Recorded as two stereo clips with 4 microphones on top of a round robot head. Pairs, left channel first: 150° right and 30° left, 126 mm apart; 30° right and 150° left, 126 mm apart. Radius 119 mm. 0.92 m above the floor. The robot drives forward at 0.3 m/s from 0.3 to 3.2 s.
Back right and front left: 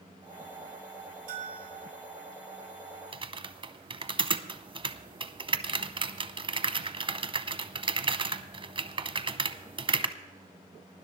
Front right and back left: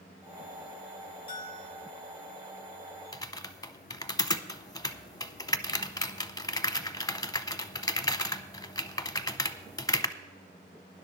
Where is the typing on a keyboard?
15° left, 0.9 m.